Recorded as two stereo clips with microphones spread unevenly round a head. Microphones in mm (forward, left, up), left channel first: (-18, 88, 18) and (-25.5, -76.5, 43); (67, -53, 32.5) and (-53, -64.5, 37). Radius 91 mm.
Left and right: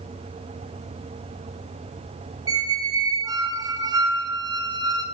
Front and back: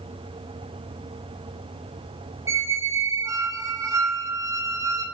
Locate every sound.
2.5 s a squeak: 130° right, 0.6 m